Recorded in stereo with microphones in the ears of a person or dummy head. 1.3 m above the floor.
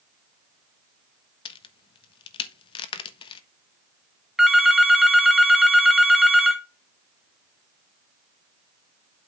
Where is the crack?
30° left (ahead or behind), 1.1 m.